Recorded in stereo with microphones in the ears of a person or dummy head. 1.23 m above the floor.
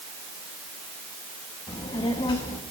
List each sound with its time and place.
1.7 s a child speaking: 25° left (ahead or behind), 1.0 m